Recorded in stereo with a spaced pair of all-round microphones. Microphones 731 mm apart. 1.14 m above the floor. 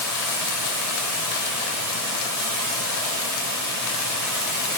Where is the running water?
25° left (ahead or behind), 3.5 m.